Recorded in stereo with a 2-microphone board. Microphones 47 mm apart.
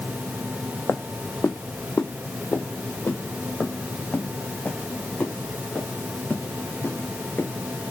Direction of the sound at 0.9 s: 75° left (ahead or behind).